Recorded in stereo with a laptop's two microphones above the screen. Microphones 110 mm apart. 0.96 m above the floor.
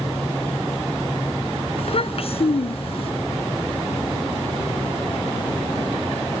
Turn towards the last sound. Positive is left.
turn(degrees=55)  # may be behind; listen again after turning